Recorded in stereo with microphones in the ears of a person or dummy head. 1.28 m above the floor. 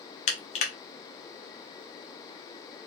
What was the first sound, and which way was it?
Crushing, 30° left (ahead or behind).